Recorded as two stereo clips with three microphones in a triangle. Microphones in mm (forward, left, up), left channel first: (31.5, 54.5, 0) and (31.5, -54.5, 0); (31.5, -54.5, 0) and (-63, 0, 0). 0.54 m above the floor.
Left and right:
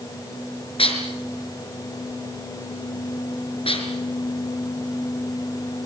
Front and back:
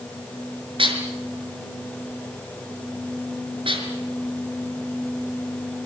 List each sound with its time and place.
0.8 s dishes clattering: 115° left, 5 m